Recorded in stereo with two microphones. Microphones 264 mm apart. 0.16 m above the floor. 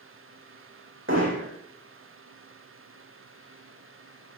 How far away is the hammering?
About 5 m.